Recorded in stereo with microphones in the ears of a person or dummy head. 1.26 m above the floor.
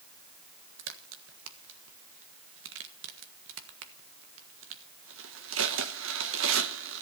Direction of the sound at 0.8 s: 70° right (ahead or behind).